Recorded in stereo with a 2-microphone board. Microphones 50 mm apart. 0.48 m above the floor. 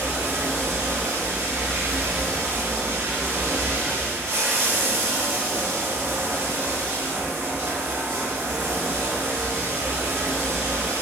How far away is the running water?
About 1.1 m.